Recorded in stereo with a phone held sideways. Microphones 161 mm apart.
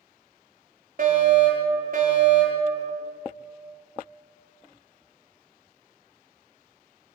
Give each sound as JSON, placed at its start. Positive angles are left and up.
{"t": 1.0, "sound": "a fire alarm", "side_deg": -60, "distance_m": 7.0}